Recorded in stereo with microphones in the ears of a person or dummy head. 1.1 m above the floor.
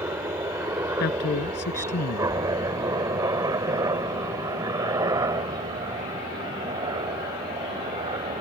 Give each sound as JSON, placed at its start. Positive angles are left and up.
{"t": 0.0, "sound": "a helicopter", "side_deg": -10}
{"t": 1.0, "sound": "a man speaking", "side_deg": 55}